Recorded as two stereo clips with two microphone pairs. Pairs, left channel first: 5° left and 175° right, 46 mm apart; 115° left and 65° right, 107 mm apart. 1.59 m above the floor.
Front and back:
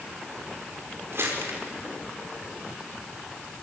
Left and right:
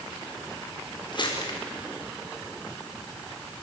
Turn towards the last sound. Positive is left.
turn(degrees=155)